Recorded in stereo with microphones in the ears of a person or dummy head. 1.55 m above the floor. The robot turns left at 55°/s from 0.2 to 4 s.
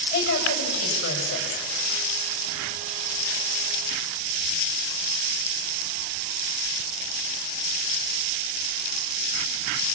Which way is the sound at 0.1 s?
125° left.